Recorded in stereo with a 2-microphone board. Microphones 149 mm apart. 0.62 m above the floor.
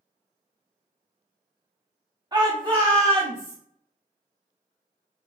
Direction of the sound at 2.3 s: 30° right (ahead or behind).